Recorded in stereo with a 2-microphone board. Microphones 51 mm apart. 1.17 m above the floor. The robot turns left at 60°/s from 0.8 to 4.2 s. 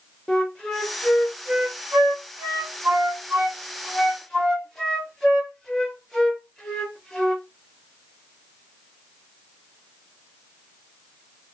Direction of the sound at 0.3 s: 15° left (ahead or behind).